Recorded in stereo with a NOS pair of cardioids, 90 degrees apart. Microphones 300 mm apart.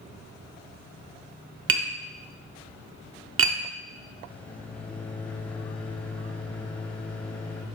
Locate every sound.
1.7 s tapping: 50° right, 1.1 m
4.3 s a microwave: 5° left, 0.7 m